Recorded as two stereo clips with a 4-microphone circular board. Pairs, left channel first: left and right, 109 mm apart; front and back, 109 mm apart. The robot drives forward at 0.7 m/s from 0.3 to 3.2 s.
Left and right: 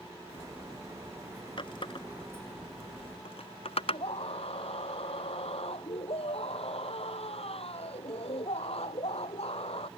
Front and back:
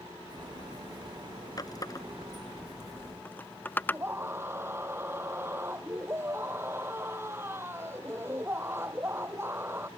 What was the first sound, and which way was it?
A running tap, 50° left.